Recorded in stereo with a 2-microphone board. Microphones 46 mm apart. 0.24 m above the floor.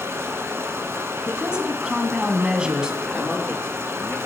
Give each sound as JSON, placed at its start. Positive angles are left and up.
{"t": 0.0, "sound": "running water", "side_deg": -65, "distance_m": 1.6}
{"t": 1.3, "sound": "a woman speaking", "side_deg": -20, "distance_m": 1.9}
{"t": 3.0, "sound": "a man speaking", "side_deg": 25, "distance_m": 4.0}